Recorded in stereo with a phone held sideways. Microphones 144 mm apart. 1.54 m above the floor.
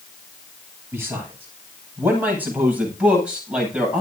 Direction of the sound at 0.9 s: 15° right (ahead or behind).